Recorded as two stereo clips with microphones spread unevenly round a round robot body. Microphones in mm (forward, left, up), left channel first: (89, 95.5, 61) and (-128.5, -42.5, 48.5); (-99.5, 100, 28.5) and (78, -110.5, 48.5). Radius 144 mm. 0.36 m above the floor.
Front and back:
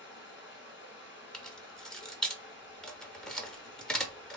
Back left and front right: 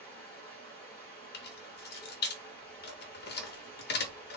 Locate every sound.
0.0 s running water: 50° left, 1.4 m
1.3 s keys jangling: 120° left, 0.7 m